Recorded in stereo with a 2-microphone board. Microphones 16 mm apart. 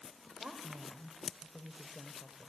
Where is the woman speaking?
60° right (ahead or behind), 2 m.